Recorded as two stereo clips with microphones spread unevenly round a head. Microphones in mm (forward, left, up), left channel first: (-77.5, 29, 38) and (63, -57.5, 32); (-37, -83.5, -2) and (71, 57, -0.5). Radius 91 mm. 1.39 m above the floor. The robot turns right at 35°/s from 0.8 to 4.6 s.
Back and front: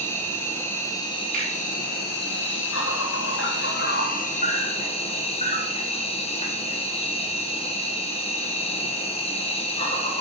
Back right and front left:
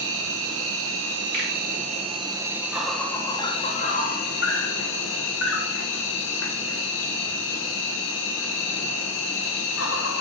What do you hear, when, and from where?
0.0 s an insect: 70° left, 1.0 m; by 10.2 s 155° right, 1.0 m
1.3 s a finger snap: 15° left, 3.5 m; by 1.5 s 20° left, 3.5 m